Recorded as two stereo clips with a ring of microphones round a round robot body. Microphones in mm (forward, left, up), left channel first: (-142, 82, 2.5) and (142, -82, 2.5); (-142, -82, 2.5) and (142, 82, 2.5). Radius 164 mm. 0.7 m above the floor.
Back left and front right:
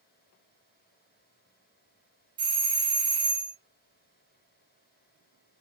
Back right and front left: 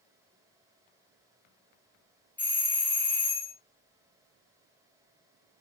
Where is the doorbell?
75° right, 0.9 m.